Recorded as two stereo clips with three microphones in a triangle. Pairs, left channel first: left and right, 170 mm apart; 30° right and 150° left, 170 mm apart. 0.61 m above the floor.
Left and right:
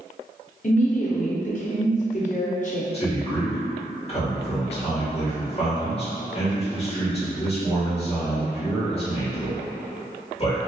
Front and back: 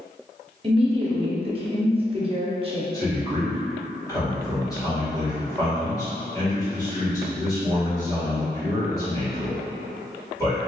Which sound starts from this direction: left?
A woman speaking, at 0.6 s.